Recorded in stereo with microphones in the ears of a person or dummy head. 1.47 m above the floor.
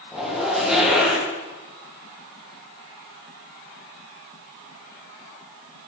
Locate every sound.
0.1 s a zipper: centre (ahead or behind), 1.2 m